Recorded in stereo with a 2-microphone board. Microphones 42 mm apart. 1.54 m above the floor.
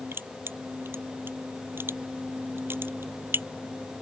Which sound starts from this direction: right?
Crushing, at 0.1 s.